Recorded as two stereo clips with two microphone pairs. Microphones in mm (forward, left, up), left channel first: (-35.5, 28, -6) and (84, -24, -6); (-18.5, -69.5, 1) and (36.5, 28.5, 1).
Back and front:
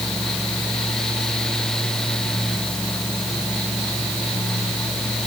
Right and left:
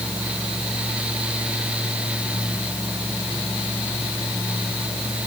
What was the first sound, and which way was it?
Only background noise.